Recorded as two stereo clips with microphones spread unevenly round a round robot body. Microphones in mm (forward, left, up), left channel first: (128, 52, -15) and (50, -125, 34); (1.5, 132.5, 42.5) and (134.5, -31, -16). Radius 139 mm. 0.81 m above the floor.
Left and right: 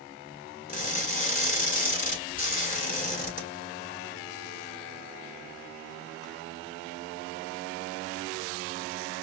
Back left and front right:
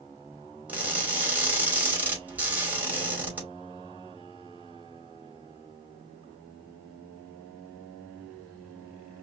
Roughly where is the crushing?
Ahead left.